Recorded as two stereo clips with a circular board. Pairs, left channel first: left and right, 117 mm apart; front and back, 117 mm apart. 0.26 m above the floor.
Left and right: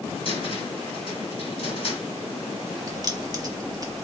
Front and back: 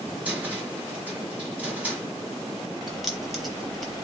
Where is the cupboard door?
105° left, 1.4 m.